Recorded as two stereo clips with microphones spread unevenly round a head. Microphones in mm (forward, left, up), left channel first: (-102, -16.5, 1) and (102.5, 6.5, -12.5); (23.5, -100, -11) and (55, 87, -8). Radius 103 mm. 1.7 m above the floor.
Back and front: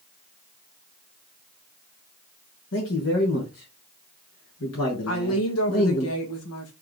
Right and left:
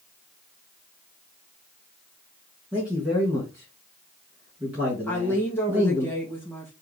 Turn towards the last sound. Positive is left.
turn(degrees=180)